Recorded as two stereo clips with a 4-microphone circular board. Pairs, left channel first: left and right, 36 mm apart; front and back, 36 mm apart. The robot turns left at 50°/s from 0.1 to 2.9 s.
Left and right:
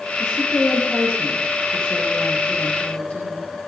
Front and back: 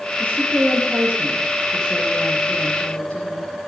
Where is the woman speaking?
155° right, 5 m; by 3.5 s 70° left, 5 m.